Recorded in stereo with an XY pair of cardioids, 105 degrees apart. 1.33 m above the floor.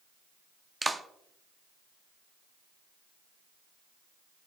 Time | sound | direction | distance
0.8 | a clap | 15° right | 0.7 m